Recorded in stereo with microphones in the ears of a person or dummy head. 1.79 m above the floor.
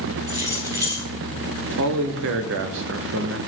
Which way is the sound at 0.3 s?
25° right (ahead or behind).